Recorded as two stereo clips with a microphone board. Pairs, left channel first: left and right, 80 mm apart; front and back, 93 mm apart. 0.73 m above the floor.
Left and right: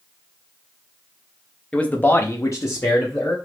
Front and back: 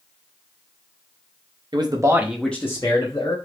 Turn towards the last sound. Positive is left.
turn(degrees=35)